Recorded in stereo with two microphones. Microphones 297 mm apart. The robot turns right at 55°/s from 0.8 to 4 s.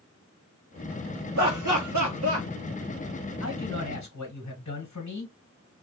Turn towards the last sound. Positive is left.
turn(degrees=90)